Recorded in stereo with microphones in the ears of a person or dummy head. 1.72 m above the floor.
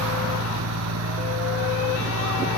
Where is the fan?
75° right (ahead or behind).